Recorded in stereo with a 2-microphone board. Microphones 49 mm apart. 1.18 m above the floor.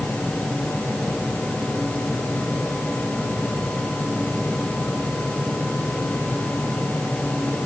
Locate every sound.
Only background noise.